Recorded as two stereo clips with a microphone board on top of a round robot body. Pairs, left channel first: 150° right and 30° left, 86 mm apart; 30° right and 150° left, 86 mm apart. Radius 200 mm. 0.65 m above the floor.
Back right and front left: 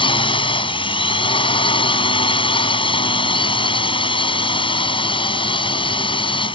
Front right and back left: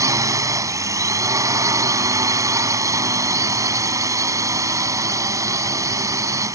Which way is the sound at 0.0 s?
160° right.